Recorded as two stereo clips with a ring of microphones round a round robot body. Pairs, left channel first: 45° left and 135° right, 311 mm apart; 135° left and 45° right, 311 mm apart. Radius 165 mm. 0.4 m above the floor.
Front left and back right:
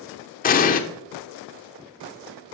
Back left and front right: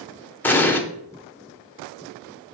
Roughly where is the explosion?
Ahead left.